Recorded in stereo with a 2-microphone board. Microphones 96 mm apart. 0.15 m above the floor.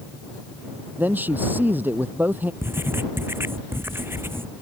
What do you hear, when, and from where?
1.0 s a man speaking: 20° right (ahead or behind)
2.6 s writing: 25° right (ahead or behind)